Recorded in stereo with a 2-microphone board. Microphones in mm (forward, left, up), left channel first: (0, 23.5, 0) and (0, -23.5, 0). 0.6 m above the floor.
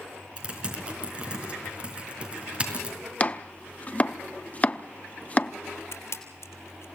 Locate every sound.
0.4 s typing on a keyboard: 25° right (ahead or behind), 4.5 m
3.2 s chopping: 30° left (ahead or behind), 0.7 m
5.9 s a camera shutter: 70° left (ahead or behind), 3 m